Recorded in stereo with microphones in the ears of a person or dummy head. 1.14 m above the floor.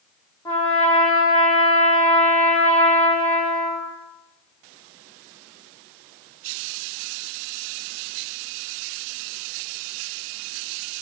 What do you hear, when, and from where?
0.5 s a trumpet: 15° left (ahead or behind), 2.5 m